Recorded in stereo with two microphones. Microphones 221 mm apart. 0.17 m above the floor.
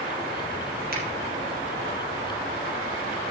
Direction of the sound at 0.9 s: 45° right (ahead or behind).